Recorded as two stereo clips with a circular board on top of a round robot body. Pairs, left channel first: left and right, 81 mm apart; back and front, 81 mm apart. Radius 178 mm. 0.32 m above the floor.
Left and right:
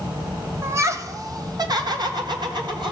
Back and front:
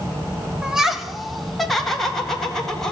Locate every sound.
0.6 s laughter: 75° right, 1.1 m; by 2.9 s 95° right, 2.5 m